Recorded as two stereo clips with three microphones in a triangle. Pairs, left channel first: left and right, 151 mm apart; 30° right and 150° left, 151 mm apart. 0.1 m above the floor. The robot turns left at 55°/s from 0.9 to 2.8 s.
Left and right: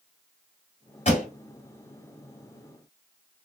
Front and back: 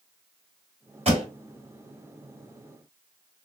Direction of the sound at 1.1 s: 115° left.